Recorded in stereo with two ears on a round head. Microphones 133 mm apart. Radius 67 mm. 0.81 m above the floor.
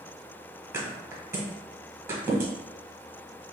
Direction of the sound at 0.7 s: 15° right (ahead or behind).